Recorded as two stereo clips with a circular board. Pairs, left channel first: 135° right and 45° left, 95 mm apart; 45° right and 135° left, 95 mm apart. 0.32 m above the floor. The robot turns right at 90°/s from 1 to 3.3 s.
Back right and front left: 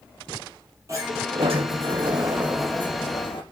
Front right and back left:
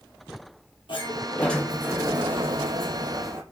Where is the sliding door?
10° right, 6 m; by 3.4 s 165° right, 6 m.